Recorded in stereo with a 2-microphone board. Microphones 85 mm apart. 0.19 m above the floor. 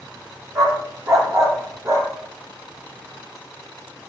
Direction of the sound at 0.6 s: 35° right (ahead or behind).